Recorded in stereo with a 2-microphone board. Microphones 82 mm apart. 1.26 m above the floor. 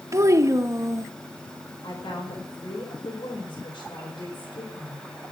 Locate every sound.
0.1 s a child speaking: 40° right (ahead or behind), 0.7 m
1.8 s a woman speaking: 90° left, 4.5 m